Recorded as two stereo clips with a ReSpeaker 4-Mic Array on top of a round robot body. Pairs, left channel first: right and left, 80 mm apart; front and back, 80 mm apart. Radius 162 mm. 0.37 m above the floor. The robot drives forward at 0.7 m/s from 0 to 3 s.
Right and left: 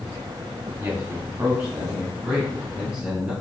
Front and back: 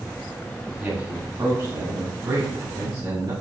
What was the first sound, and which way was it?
A man speaking, 125° left.